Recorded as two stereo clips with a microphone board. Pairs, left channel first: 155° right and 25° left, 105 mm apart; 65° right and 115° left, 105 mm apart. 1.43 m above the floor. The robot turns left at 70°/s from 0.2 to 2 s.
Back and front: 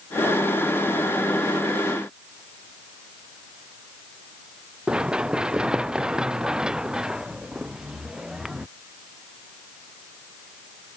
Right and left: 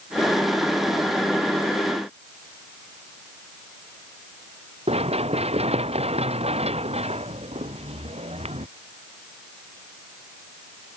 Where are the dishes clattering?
I don't hear dishes clattering.